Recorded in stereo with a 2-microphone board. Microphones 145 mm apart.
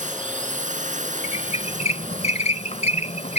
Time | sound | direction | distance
0.0 | a drone | 60° right (ahead or behind) | ?
1.2 | a squeak | 50° left (ahead or behind) | ?